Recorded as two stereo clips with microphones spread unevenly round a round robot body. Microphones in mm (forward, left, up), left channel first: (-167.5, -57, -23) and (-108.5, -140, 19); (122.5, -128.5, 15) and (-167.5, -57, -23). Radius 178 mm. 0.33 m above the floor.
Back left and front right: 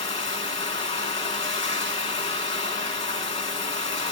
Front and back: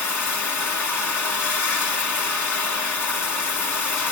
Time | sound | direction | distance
0.0 | running water | 75° left | 2.5 m